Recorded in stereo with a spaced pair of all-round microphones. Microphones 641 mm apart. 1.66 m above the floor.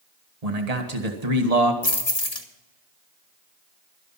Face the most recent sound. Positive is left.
turn(degrees=70)  # may be behind; listen again after turning